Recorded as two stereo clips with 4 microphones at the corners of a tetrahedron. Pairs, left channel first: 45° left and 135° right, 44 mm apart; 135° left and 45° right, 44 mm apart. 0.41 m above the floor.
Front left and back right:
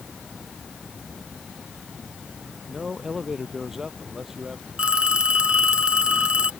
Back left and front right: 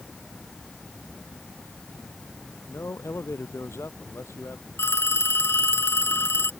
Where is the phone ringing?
160° left.